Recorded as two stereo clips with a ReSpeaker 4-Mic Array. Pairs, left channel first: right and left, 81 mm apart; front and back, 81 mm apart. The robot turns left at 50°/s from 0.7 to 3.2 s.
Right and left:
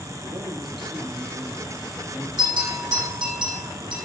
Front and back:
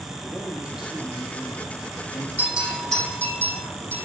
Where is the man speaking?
100° left, 6 m; by 2.3 s 25° left, 6 m.